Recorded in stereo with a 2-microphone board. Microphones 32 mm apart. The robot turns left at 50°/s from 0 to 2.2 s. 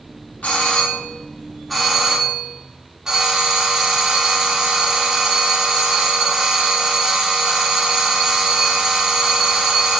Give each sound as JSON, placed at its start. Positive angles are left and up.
{"t": 0.4, "sound": "a doorbell", "azimuth_deg": 65, "distance_m": 2.0}